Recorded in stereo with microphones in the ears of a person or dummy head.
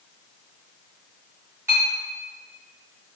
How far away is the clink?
About 1.4 m.